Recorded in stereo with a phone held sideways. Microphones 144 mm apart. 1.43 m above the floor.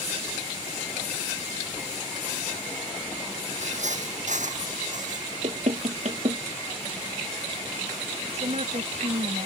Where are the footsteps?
60° right (ahead or behind); by 5.3 s 65° right (ahead or behind).